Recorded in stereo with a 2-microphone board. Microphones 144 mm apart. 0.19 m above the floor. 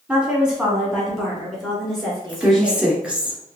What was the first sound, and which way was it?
A woman speaking, 10° right (ahead or behind).